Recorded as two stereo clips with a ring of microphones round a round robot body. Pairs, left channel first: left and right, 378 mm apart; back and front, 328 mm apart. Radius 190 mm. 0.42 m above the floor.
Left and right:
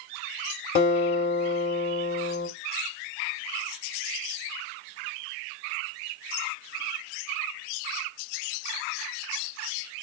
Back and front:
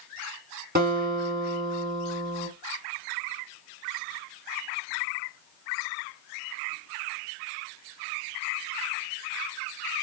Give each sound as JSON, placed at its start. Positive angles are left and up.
{"t": 0.8, "sound": "a guitar", "azimuth_deg": 40, "distance_m": 1.6}